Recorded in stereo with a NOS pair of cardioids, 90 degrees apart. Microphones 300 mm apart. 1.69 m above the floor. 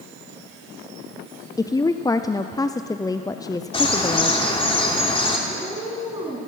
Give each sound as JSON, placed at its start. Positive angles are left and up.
{"t": 1.6, "sound": "a woman speaking", "azimuth_deg": 10, "distance_m": 0.5}
{"t": 3.7, "sound": "a bird", "azimuth_deg": 20, "distance_m": 3.0}
{"t": 5.5, "sound": "a cat meowing", "azimuth_deg": -15, "distance_m": 6.0}